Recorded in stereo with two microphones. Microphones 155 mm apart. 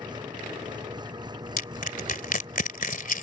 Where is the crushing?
60° left (ahead or behind).